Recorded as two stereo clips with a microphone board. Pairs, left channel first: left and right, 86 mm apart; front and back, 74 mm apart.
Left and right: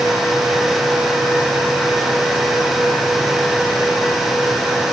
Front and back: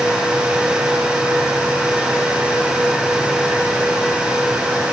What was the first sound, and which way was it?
Only background noise.